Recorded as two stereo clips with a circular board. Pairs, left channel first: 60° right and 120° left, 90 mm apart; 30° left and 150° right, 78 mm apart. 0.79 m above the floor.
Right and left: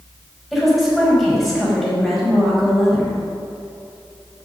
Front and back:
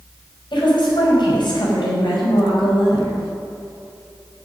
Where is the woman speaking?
30° left, 5.5 m.